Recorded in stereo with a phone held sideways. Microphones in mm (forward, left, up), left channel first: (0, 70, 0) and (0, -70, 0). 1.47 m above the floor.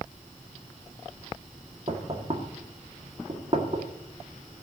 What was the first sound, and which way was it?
Knocking, 45° right (ahead or behind).